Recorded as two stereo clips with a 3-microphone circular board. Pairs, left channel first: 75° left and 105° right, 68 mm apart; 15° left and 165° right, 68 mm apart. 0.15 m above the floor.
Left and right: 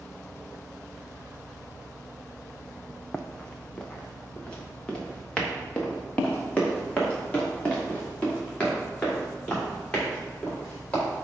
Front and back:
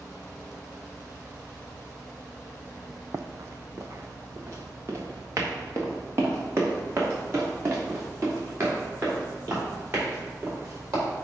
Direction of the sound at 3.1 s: 155° left.